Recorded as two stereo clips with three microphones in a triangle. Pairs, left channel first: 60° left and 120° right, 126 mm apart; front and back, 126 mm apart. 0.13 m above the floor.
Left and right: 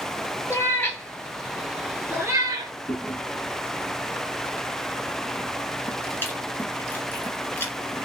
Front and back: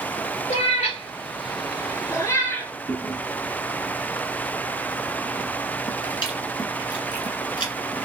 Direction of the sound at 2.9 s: 5° right.